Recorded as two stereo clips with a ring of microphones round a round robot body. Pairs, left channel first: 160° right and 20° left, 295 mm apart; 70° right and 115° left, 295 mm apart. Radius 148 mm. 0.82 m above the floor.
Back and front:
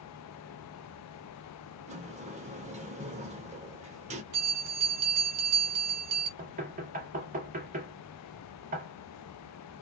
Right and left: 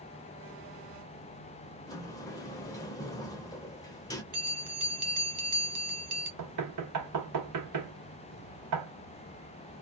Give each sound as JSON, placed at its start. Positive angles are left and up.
{"t": 1.9, "sound": "a sliding door", "azimuth_deg": -5, "distance_m": 0.5}
{"t": 4.3, "sound": "a bell", "azimuth_deg": 50, "distance_m": 1.1}
{"t": 6.4, "sound": "knocking", "azimuth_deg": 85, "distance_m": 0.8}